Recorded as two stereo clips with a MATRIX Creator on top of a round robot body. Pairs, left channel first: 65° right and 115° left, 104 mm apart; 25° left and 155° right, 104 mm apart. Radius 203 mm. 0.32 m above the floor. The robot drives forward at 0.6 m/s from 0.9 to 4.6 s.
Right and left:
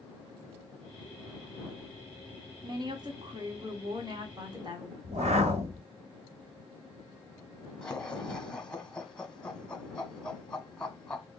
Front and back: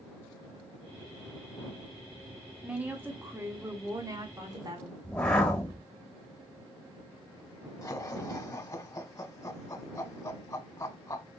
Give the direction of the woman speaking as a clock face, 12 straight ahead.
8 o'clock.